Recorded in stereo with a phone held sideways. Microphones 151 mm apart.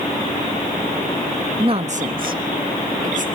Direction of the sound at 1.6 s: 35° right (ahead or behind).